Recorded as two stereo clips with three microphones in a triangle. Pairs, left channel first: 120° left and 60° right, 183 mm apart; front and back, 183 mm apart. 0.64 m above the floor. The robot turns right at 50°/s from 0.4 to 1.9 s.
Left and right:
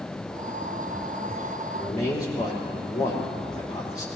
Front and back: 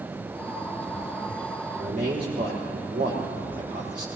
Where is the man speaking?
155° left, 2.5 m; by 4.1 s 160° left, 2.5 m.